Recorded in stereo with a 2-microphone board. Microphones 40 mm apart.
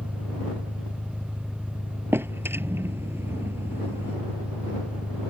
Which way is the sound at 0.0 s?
30° left (ahead or behind).